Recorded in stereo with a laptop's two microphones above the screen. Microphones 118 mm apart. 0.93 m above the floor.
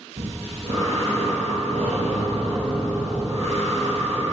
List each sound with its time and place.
0.2 s breathing: 60° right (ahead or behind), 2.5 m